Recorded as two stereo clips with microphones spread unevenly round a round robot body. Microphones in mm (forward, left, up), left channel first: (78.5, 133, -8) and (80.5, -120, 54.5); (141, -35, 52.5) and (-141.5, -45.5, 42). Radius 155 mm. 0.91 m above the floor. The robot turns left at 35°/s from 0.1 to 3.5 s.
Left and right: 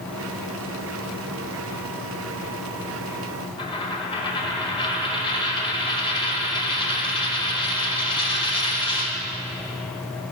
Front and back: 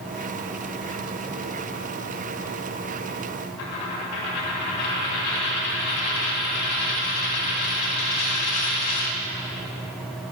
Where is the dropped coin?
15° left, 2 m.